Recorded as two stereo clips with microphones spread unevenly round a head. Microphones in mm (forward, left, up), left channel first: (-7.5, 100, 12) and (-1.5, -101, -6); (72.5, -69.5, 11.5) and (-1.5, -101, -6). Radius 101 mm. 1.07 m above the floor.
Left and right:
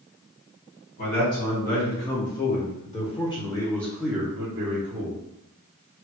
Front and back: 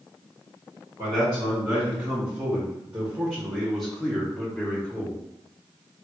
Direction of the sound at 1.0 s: 135° left.